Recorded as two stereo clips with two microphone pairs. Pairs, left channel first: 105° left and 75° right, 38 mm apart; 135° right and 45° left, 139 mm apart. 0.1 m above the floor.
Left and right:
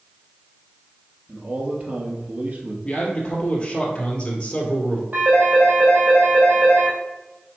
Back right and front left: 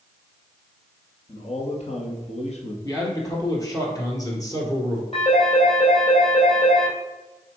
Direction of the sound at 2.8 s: 165° left.